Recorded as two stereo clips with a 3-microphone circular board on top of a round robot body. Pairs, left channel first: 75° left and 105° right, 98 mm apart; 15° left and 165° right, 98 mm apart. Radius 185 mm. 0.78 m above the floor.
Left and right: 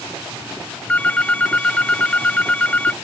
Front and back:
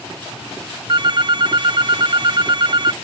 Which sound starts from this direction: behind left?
A phone ringing, at 0.9 s.